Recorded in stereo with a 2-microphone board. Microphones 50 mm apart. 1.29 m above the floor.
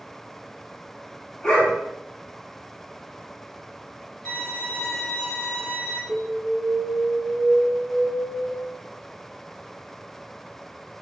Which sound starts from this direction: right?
An alarm, at 6.1 s.